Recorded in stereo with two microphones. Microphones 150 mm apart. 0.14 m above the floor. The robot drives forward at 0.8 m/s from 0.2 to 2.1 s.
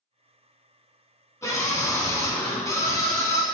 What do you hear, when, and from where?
1.4 s a scream: 20° left (ahead or behind), 1.5 m